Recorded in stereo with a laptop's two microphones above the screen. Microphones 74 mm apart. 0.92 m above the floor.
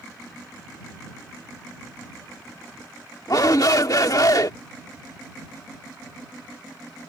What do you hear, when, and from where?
3.3 s a shout: 55° left (ahead or behind)